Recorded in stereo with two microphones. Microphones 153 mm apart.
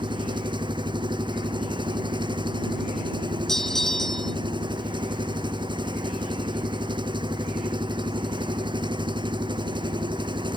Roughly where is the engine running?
Right.